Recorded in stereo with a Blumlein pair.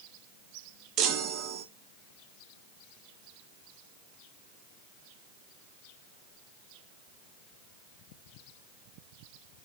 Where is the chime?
35° right, 1.2 m.